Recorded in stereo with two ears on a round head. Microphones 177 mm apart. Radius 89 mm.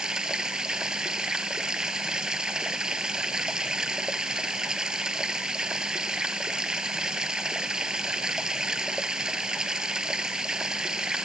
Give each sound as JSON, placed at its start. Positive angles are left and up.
{"t": 0.0, "sound": "running water", "side_deg": -5}